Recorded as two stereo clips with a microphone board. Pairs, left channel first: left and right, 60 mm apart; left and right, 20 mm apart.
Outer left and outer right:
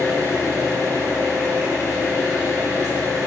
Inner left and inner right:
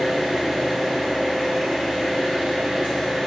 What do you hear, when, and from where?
0.0 s an engine running: 65° right (ahead or behind), 1.6 m